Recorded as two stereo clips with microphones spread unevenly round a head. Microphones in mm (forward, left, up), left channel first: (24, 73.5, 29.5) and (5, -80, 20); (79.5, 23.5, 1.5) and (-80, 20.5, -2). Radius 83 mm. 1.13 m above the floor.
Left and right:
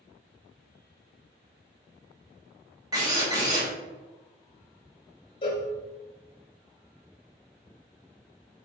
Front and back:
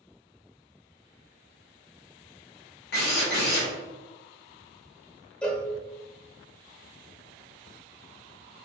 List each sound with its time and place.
2.9 s a drill: 30° right, 1.7 m
5.4 s a cowbell: 80° left, 0.9 m